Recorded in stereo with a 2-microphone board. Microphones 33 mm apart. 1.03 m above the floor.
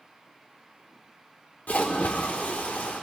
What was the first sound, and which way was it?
A splash, 55° left (ahead or behind).